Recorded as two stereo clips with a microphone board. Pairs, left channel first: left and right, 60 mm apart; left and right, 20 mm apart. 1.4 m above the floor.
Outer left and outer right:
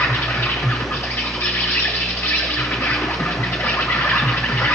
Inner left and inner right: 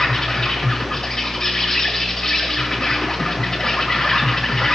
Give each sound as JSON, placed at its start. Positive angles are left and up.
{"t": 0.0, "sound": "an insect", "side_deg": 35, "distance_m": 2.0}